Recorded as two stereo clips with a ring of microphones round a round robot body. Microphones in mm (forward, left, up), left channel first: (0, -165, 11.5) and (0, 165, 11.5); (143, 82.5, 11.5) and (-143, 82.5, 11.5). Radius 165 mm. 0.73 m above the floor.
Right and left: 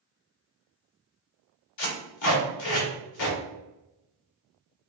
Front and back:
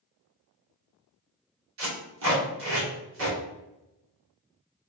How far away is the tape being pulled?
About 2.0 m.